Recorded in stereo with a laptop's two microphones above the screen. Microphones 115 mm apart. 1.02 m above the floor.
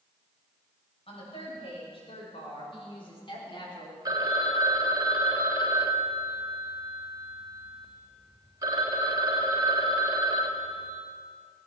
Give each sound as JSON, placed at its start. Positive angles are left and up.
{"t": 1.1, "sound": "a woman speaking", "side_deg": 55, "distance_m": 6.5}
{"t": 4.0, "sound": "a phone ringing", "side_deg": -30, "distance_m": 2.0}